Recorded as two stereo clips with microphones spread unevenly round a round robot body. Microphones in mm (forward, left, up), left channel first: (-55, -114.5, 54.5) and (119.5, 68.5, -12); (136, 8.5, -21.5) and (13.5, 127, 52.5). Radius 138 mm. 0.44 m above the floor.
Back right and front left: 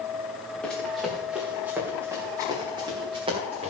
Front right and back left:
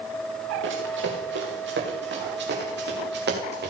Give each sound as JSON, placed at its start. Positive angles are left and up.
{"t": 0.6, "sound": "running footsteps", "azimuth_deg": 140, "distance_m": 4.5}